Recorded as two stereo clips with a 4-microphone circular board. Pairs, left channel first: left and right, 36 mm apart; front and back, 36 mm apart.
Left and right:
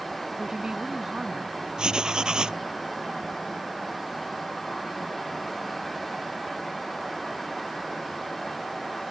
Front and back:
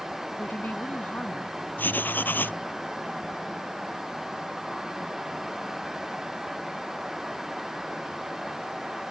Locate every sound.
0.4 s a woman speaking: 20° right
1.8 s writing: 25° right